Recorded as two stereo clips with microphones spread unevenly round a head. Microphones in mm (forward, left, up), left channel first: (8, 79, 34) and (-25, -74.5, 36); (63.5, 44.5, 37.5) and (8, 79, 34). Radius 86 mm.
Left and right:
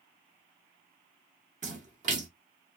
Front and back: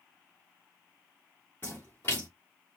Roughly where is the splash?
Right.